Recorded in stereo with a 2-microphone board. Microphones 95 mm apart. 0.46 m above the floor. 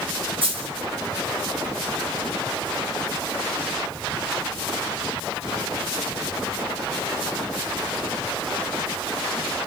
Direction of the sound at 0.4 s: 70° right (ahead or behind).